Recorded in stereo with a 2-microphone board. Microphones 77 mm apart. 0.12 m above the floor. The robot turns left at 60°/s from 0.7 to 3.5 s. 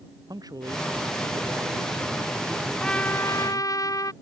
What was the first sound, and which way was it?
A man speaking, 60° right.